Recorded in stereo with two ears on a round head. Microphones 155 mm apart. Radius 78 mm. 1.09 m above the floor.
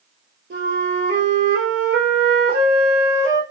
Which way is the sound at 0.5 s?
65° right (ahead or behind).